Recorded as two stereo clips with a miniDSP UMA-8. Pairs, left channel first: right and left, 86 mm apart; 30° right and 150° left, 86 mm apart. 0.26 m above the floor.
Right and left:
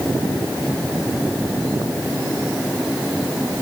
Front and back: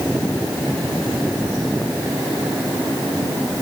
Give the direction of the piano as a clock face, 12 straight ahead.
No piano in this recording.